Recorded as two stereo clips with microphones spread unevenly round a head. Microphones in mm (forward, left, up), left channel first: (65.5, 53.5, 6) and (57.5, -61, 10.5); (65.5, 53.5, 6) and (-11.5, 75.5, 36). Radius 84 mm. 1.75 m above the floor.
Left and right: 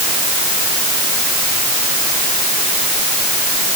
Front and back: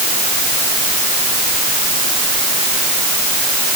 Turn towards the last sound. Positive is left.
No sound to turn to.